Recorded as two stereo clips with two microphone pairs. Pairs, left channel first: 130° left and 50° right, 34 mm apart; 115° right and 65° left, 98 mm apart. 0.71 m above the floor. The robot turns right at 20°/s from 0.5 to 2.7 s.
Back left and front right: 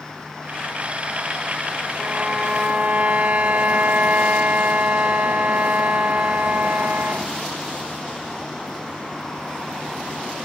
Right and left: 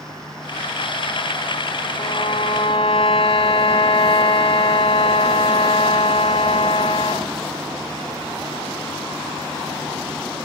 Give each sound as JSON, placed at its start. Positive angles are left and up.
{"t": 2.0, "sound": "a violin", "azimuth_deg": -105, "distance_m": 4.5}